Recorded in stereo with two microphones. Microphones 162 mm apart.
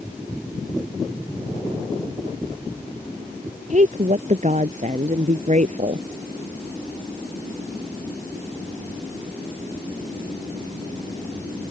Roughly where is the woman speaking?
Right.